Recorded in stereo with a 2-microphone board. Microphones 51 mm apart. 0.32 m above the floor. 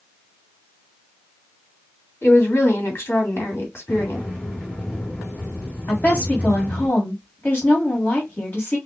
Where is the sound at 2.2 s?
50° left (ahead or behind), 2.5 m.